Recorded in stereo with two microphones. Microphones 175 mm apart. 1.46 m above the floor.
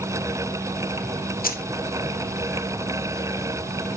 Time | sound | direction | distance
1.4 | keys jangling | 55° left (ahead or behind) | 0.8 m